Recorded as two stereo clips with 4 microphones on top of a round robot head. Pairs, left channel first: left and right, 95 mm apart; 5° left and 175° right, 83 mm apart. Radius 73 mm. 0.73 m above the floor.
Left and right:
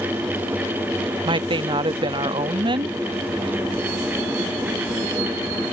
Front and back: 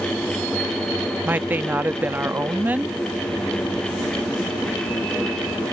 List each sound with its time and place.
1.2 s a woman speaking: 105° right